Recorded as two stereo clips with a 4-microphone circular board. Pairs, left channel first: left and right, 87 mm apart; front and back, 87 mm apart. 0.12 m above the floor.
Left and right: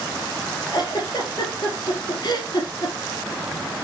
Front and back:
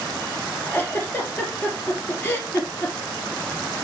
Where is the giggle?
65° left, 2.5 m.